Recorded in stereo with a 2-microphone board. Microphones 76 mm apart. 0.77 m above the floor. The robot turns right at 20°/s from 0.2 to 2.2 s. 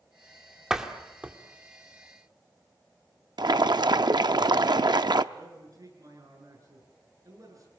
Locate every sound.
0.7 s a door slam: 10° right (ahead or behind), 1.8 m; by 1.4 s 20° right (ahead or behind), 1.8 m
3.4 s boiling: 70° right (ahead or behind), 0.6 m
5.3 s a man speaking: 50° right (ahead or behind), 9.5 m